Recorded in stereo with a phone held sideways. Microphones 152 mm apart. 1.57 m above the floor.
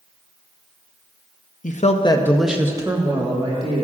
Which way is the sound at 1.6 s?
60° left (ahead or behind).